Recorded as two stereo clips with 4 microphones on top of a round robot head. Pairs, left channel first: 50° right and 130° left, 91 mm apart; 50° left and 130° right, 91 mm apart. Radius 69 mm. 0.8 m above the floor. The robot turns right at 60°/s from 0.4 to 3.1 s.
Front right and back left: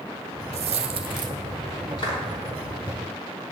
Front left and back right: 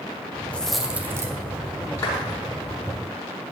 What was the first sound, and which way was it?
A dropped coin, 125° left.